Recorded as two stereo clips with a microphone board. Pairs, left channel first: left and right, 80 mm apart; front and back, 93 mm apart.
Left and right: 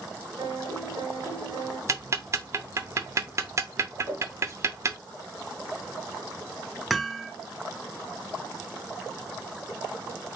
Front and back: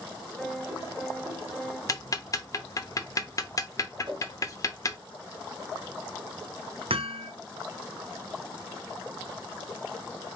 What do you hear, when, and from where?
0.4 s a piano: 85° right, 2.0 m
1.9 s ticking: 45° right, 0.6 m
4.0 s a whoosh: 150° right, 1.9 m
6.9 s hammering: straight behind, 0.6 m